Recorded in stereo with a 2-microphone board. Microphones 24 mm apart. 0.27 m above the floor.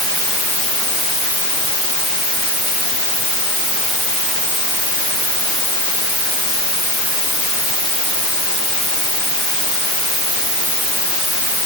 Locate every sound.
Only background noise.